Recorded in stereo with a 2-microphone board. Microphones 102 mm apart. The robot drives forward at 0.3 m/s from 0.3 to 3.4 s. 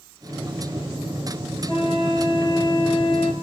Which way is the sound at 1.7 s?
55° left (ahead or behind).